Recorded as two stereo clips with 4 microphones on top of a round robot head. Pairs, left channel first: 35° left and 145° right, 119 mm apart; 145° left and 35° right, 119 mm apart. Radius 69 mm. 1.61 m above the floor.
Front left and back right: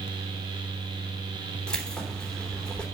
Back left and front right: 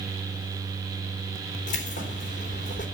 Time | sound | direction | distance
1.7 | keys jangling | 120° left | 3 m